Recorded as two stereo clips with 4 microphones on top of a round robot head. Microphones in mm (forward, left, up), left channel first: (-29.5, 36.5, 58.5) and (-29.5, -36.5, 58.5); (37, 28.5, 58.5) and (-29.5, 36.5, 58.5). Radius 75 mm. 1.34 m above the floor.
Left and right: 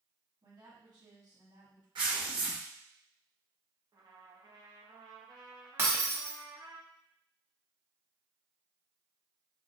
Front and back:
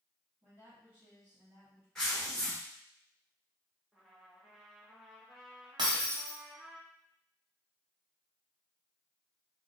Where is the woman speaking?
120° right, 2.5 m.